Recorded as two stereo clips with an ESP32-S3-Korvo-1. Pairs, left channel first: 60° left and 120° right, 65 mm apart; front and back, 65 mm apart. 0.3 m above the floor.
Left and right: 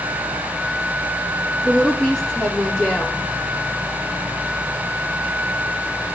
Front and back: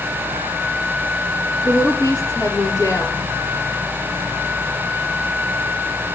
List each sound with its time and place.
1.6 s a woman speaking: 25° right, 6 m